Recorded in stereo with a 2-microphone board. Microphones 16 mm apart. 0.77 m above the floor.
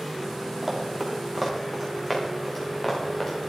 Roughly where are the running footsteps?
Centre.